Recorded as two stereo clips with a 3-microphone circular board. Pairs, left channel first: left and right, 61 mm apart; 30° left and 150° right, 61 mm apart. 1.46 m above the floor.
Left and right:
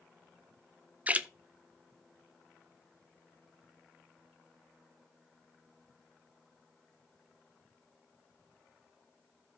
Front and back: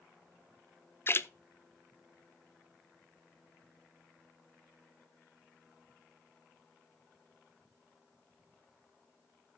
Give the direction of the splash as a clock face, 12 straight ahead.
1 o'clock.